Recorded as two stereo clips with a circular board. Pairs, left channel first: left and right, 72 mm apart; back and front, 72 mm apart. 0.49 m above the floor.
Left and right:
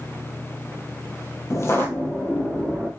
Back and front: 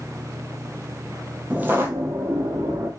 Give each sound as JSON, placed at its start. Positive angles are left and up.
{"t": 1.5, "sound": "footsteps", "azimuth_deg": 65, "distance_m": 0.6}